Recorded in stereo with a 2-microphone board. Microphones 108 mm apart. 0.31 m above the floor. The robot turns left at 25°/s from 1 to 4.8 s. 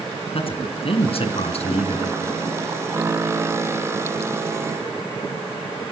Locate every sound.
0.3 s a man speaking: 60° left (ahead or behind), 3 m; by 2.2 s 70° left (ahead or behind), 3 m